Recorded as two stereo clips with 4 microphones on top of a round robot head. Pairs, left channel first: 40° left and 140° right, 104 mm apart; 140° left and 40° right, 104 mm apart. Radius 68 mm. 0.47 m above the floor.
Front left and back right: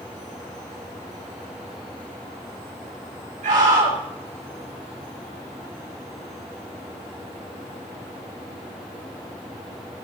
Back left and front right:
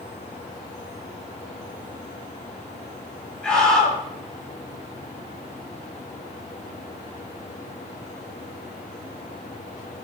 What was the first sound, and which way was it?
A scream, 140° right.